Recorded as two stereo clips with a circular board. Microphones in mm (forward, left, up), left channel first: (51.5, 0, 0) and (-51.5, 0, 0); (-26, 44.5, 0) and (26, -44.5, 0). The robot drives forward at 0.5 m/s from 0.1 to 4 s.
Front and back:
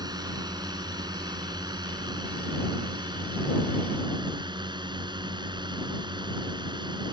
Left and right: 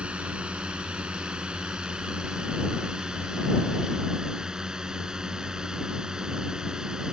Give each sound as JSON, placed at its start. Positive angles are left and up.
{"t": 0.0, "sound": "a drone", "azimuth_deg": -135}